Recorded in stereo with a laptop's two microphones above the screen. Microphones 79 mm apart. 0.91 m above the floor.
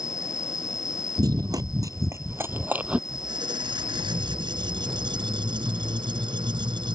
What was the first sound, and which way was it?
An insect, 45° left (ahead or behind).